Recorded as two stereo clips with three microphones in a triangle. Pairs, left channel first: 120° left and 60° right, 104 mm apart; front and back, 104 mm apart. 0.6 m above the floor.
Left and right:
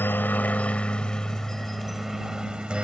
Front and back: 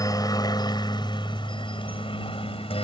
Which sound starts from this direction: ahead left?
A helicopter, at 0.0 s.